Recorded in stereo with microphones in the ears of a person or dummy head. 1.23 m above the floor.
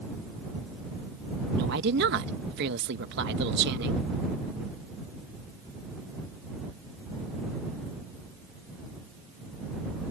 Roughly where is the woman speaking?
Right.